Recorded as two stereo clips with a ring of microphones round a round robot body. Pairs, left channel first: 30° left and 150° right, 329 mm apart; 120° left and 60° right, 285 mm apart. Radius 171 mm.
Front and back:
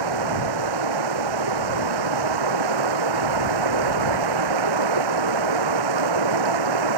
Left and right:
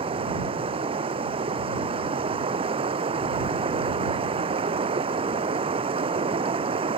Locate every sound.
0.0 s running water: 135° right